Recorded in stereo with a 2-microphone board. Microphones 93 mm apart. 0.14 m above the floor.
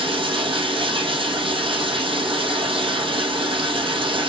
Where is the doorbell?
No doorbell in this recording.